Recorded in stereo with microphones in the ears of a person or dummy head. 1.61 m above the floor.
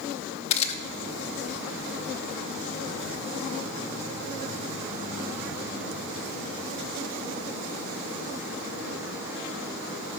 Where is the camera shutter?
35° left (ahead or behind), 1.3 m.